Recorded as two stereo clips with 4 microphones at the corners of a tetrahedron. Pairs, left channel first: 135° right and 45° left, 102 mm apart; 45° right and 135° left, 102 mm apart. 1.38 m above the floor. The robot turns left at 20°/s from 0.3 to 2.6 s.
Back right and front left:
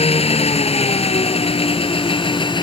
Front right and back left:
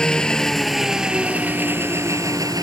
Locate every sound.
0.0 s an engine running: 125° right; by 2.6 s 175° right